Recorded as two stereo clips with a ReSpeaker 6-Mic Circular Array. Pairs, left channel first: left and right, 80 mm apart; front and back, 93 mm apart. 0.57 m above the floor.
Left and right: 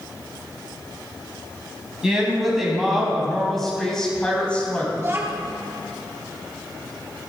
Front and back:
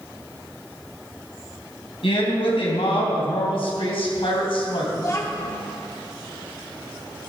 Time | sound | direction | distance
2.0 | a woman speaking | 10° right | 3.5 m
5.0 | a child speaking | 45° right | 0.9 m